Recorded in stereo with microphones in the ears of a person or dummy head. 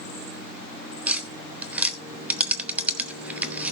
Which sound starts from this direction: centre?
Tapping, at 1.1 s.